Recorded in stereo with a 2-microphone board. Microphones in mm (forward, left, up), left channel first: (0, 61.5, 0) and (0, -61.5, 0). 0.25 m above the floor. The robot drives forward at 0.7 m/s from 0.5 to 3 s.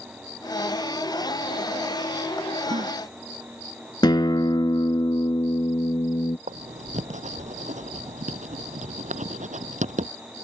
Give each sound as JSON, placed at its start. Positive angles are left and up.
{"t": 2.7, "sound": "a gasp", "side_deg": -45}
{"t": 4.0, "sound": "a guitar", "side_deg": 35}
{"t": 6.5, "sound": "writing", "side_deg": -85}